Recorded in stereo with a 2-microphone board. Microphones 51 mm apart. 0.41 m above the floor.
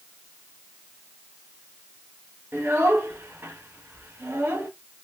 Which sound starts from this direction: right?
A child speaking, at 2.5 s.